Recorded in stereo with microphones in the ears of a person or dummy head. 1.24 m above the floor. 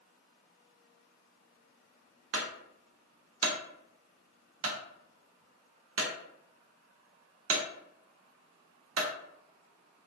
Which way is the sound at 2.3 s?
70° right (ahead or behind).